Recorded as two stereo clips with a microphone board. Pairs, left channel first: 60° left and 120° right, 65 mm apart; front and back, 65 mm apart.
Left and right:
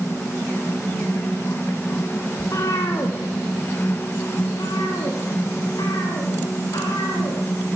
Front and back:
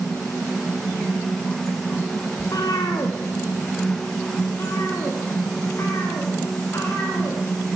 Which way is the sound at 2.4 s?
20° left.